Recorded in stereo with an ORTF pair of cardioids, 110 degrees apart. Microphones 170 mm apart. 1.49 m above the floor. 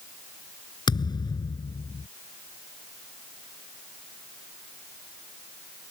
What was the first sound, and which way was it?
A thud, 25° left.